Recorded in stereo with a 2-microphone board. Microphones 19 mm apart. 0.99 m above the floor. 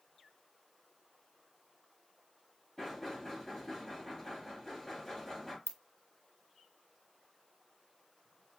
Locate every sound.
2.8 s knocking: 5° left (ahead or behind), 2.5 m
5.7 s a ringtone: 60° left (ahead or behind), 0.6 m